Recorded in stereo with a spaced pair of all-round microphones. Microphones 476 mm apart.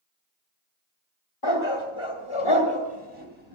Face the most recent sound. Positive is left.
turn(degrees=65)  # may be behind; listen again after turning